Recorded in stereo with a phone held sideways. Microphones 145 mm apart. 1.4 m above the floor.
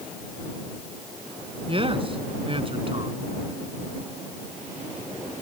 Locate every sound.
1.7 s a man speaking: 40° right (ahead or behind)